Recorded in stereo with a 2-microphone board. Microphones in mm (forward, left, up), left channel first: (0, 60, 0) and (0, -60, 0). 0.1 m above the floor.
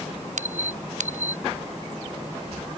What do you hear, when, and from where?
0.4 s a squeak: 85° right